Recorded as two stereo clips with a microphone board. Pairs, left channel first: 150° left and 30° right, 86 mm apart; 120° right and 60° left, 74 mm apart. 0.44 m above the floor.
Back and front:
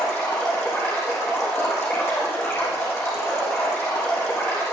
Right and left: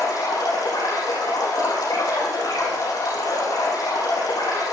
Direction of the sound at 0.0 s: 150° right.